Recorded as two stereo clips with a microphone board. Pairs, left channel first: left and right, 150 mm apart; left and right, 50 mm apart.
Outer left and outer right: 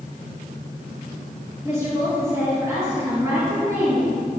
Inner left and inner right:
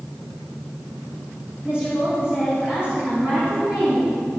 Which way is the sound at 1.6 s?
20° right (ahead or behind).